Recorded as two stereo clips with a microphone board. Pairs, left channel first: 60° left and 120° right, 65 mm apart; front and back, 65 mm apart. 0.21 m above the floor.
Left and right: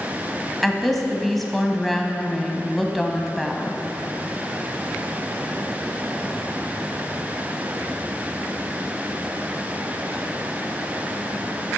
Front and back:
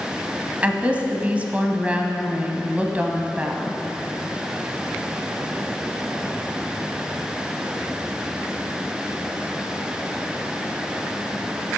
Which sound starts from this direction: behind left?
A woman speaking, at 0.6 s.